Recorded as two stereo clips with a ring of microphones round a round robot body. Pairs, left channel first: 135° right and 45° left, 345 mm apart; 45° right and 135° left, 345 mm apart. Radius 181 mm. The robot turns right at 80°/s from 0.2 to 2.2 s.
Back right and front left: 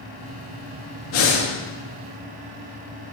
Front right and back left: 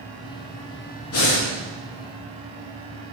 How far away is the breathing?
About 1.5 m.